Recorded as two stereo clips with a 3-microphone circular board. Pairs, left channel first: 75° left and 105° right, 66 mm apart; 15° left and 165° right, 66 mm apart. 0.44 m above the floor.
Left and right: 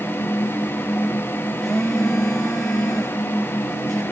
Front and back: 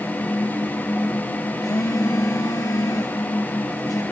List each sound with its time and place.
1.6 s a phone buzzing: 10° right, 3 m